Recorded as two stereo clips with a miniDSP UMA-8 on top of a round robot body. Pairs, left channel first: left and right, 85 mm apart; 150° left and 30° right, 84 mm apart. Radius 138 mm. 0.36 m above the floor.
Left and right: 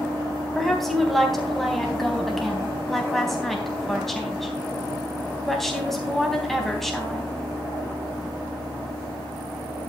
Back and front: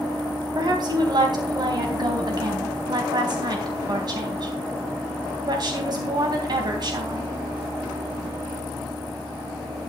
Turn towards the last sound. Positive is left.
turn(degrees=5)